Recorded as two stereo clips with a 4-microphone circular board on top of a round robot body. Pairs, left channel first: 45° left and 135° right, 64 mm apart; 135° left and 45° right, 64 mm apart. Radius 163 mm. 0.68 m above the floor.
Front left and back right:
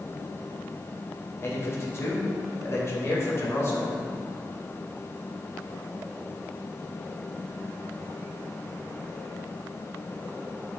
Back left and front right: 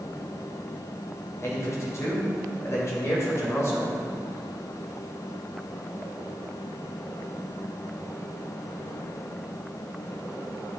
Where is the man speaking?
90° left, 3 m.